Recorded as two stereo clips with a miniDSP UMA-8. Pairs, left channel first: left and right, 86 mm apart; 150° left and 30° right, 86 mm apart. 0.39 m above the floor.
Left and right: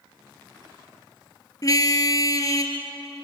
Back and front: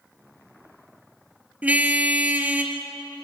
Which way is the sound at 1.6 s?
45° left.